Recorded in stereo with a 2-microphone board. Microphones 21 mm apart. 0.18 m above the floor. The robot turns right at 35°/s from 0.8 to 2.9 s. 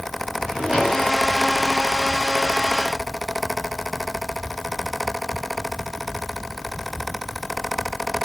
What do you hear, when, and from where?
0.4 s a drawer: 35° right (ahead or behind), 8.5 m; by 1.1 s 45° right (ahead or behind), 8.5 m